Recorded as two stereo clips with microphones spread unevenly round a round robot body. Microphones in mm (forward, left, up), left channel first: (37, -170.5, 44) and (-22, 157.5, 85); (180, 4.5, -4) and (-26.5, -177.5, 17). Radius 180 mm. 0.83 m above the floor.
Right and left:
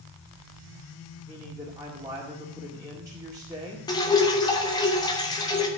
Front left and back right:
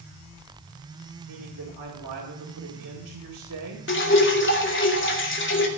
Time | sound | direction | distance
1.3 | a man speaking | 175° right | 1.9 m
3.9 | dripping | 5° right | 2 m